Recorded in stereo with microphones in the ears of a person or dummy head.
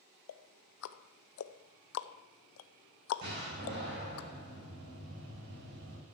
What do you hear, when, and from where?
0.3 s ticking: 75° left (ahead or behind), 0.6 m
3.2 s a door slam: 50° right (ahead or behind), 6.5 m